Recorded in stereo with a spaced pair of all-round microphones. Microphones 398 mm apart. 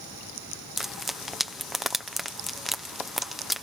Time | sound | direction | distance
0.8 | frying | centre (ahead or behind) | ?